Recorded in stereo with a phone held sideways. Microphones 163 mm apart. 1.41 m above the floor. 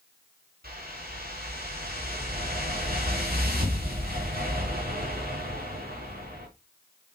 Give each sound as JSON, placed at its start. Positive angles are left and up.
{"t": 0.6, "sound": "a whoosh", "side_deg": -70, "distance_m": 4.0}